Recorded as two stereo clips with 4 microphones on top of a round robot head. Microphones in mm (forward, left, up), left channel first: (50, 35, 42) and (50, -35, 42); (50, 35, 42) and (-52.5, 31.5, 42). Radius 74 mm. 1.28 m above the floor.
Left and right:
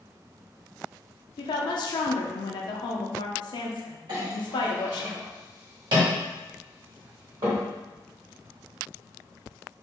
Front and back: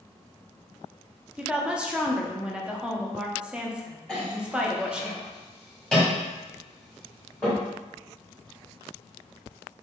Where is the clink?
80° right, 1.3 m.